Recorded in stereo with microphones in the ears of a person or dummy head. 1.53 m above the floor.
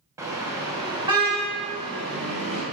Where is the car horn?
15° right (ahead or behind), 4 m; by 2.6 s 30° right (ahead or behind), 6 m.